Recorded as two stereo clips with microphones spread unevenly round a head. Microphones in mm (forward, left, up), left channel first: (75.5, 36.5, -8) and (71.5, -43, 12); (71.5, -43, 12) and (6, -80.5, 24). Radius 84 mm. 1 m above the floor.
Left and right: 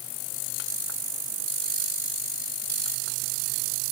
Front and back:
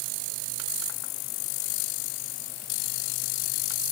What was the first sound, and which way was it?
Only background noise.